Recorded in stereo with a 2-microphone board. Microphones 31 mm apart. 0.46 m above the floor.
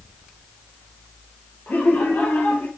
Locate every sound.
1.7 s laughter: 85° left, 8.5 m; by 2.7 s 80° left, 7.5 m